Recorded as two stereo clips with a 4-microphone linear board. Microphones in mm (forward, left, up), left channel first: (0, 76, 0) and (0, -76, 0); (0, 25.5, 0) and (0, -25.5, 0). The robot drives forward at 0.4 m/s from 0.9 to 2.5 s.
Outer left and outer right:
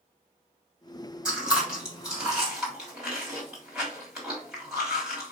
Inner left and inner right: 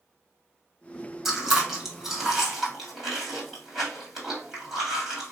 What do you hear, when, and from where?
1.2 s chewing: 5° right (ahead or behind), 1.4 m